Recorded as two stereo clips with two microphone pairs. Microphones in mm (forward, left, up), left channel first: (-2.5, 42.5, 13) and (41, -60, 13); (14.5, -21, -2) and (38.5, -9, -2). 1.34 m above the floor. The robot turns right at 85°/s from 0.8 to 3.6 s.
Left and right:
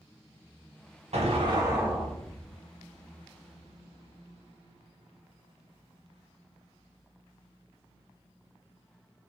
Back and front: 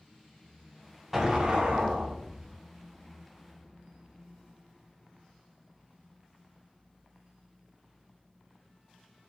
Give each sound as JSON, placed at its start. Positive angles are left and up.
{"t": 1.1, "sound": "an explosion", "azimuth_deg": -50, "distance_m": 0.7}